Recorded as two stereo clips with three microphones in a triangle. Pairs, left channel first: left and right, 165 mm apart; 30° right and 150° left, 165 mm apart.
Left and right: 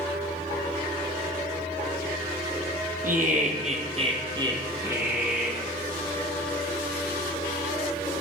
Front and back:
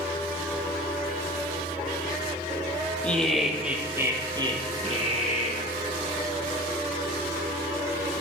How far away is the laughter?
About 3 m.